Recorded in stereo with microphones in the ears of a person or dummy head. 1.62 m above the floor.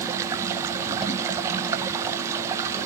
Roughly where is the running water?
Centre.